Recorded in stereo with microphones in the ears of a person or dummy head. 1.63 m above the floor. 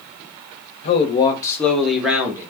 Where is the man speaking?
35° left (ahead or behind), 0.8 m; by 2.5 s 15° right (ahead or behind), 1.1 m.